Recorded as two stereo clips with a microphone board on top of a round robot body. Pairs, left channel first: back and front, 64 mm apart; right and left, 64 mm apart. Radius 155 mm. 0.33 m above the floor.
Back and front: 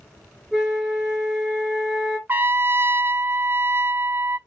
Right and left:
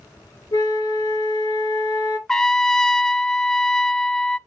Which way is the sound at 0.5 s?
90° right.